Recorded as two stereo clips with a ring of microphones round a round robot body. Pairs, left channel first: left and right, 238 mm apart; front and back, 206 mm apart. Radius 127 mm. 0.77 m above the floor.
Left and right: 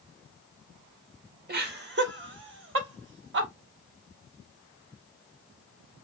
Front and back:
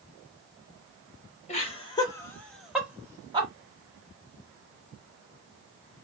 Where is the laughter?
50° right, 1.3 m; by 3.5 s 120° right, 1.3 m.